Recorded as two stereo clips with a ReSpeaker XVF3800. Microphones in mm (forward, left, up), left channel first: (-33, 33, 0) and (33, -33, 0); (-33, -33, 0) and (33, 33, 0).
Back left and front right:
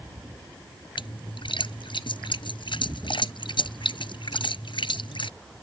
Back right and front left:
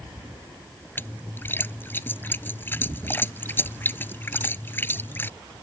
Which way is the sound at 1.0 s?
160° left.